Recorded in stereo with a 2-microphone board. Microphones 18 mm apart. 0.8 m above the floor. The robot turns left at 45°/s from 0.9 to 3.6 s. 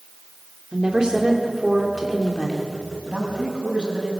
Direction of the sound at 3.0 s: 70° right (ahead or behind).